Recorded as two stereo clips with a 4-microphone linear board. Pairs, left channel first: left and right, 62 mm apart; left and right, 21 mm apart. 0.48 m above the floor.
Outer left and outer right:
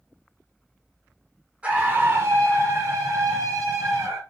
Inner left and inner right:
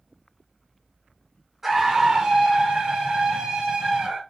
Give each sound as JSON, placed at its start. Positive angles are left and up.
{"t": 1.6, "sound": "a scream", "side_deg": -20, "distance_m": 1.4}